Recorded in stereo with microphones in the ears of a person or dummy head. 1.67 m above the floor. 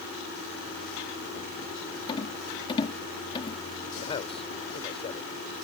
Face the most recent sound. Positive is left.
turn(degrees=30)  # may be behind; listen again after turning